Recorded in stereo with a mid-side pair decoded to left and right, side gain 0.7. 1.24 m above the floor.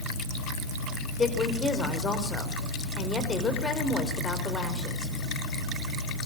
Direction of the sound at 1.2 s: 20° left.